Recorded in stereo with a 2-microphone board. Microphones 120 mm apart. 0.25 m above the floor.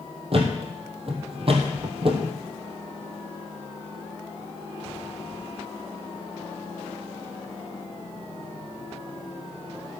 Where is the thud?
50° right (ahead or behind), 2.5 m.